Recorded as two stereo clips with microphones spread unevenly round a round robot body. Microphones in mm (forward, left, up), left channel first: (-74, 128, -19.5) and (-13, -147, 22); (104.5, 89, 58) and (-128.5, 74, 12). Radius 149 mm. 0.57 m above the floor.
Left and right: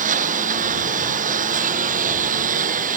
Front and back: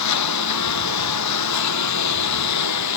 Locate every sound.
0.0 s a lawn mower: 10° right